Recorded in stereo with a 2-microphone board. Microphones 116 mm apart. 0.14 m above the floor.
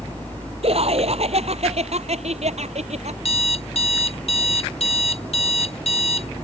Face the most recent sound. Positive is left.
turn(degrees=60)  # may be behind; listen again after turning